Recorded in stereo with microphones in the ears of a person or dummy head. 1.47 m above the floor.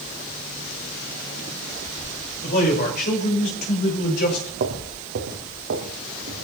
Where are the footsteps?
60° right (ahead or behind), 3 m.